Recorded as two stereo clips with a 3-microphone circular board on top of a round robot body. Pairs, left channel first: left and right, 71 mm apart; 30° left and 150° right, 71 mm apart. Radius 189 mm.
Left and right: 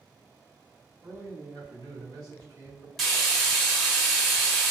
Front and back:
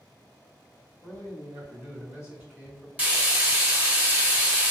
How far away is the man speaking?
About 1.8 m.